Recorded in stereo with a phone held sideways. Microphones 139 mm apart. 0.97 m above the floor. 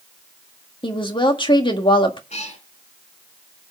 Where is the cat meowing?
55° left (ahead or behind), 2.5 m.